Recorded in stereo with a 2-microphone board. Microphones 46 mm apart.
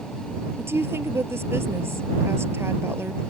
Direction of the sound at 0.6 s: 65° right (ahead or behind).